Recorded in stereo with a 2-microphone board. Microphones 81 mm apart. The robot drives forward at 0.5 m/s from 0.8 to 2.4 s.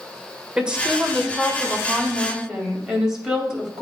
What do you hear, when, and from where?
0.6 s a woman speaking: 15° right (ahead or behind), 1.4 m; by 3.8 s 10° right (ahead or behind), 2 m